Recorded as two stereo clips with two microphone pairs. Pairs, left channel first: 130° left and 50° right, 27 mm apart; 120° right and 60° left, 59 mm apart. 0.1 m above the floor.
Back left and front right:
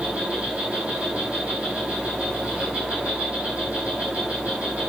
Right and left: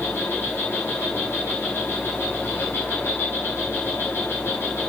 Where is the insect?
75° right, 6.5 m.